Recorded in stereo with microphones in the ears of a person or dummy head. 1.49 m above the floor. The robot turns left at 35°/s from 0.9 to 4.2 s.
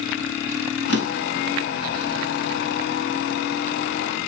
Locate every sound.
0.9 s a drawer: 80° left, 4.5 m; by 1.5 s 65° left (ahead or behind), 4.5 m